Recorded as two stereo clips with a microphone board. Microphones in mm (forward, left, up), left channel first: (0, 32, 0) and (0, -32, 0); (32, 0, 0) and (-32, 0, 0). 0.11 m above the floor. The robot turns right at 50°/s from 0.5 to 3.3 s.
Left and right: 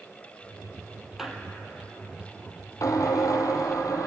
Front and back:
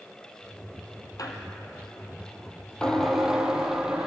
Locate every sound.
1.2 s a squeak: 5° right, 2.5 m; by 4.1 s 100° left, 2.5 m